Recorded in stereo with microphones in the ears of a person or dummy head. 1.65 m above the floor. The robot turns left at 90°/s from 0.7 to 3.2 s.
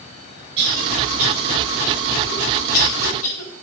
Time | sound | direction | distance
0.6 | a cough | 90° right | 7.5 m